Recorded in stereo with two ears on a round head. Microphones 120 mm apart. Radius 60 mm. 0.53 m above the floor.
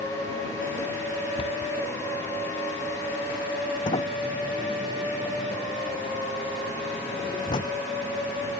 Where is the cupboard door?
35° left (ahead or behind).